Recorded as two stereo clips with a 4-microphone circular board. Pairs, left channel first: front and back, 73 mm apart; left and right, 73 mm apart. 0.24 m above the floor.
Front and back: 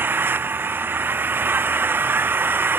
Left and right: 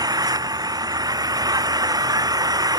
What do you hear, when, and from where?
0.0 s an engine running: 120° right